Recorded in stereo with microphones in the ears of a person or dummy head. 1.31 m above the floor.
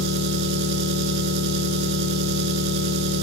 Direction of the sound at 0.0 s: 60° right (ahead or behind).